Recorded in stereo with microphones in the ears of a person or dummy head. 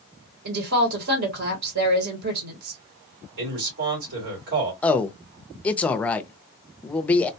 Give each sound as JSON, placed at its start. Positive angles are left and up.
{"t": 0.5, "sound": "a woman speaking", "side_deg": -65, "distance_m": 1.2}
{"t": 3.4, "sound": "a man speaking", "side_deg": -70, "distance_m": 2.5}
{"t": 4.8, "sound": "a man speaking", "side_deg": 10, "distance_m": 0.5}